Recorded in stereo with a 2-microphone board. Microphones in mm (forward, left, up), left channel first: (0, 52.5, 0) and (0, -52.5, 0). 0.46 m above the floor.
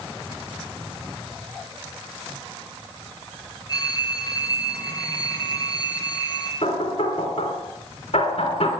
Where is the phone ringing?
35° left (ahead or behind), 4 m.